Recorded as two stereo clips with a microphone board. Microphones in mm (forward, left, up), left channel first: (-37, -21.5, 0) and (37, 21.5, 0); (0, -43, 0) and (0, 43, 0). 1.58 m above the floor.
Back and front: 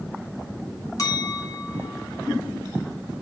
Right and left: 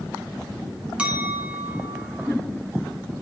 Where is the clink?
165° left, 2.0 m.